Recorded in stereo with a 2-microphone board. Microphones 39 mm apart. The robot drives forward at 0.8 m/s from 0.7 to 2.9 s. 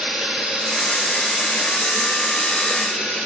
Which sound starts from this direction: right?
Running water, at 0.0 s.